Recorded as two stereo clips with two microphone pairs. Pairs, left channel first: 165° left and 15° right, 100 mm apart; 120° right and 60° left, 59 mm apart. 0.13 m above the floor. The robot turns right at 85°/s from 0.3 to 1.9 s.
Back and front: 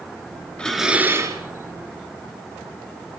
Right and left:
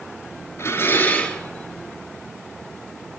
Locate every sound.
0.6 s dishes clattering: 115° right, 1.3 m; by 1.4 s 45° right, 1.3 m